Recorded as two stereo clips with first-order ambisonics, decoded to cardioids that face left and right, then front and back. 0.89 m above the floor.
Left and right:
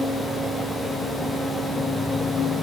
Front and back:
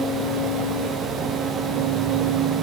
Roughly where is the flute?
No flute in this recording.